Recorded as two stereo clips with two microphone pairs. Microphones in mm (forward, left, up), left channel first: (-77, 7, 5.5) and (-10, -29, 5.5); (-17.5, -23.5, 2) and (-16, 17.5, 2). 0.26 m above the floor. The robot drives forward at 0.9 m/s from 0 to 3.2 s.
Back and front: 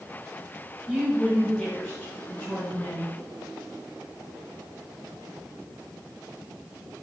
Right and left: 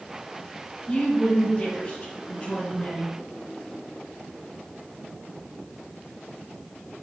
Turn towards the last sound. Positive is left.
turn(degrees=-155)